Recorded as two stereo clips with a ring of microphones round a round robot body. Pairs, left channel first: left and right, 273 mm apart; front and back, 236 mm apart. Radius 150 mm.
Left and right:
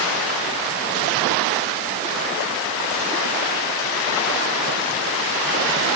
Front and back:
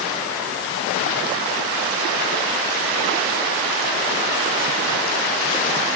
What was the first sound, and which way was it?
Only background noise.